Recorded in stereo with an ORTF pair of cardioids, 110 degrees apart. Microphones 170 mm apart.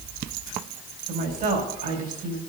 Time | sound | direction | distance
1.1 | a woman speaking | 60° right | 4.5 m